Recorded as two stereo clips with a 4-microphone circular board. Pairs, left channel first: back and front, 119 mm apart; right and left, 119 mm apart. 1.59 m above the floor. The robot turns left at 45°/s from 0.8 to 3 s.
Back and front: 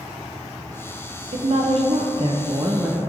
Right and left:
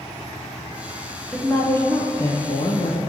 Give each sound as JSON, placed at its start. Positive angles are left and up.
{"t": 1.3, "sound": "a woman speaking", "azimuth_deg": -5, "distance_m": 0.6}